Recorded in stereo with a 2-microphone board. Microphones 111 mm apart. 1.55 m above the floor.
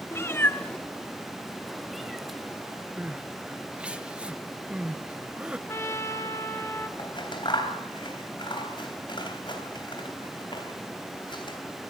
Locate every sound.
0.1 s a cat meowing: 20° left (ahead or behind), 1.2 m; by 4.0 s 5° right (ahead or behind), 5 m
3.0 s crying: 10° right (ahead or behind), 1.0 m
5.7 s a trumpet: 25° left (ahead or behind), 1.8 m
7.0 s scissors: 45° left (ahead or behind), 3.5 m